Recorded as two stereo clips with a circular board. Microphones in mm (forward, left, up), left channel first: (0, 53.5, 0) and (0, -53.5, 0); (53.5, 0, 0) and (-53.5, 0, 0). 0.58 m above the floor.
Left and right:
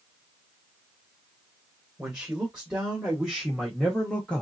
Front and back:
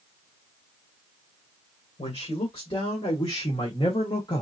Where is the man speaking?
15° right, 2 m; by 4.4 s 15° left, 1.1 m.